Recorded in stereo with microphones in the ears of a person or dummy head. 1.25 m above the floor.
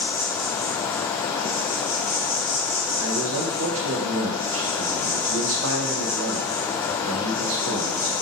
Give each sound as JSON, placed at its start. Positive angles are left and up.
{"t": 0.0, "sound": "an insect", "side_deg": 30, "distance_m": 1.1}
{"t": 3.0, "sound": "a man speaking", "side_deg": -70, "distance_m": 0.6}